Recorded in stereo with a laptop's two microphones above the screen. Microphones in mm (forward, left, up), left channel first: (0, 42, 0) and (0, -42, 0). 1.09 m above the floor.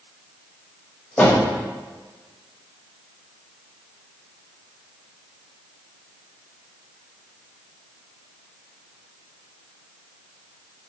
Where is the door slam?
15° left (ahead or behind), 1.2 m.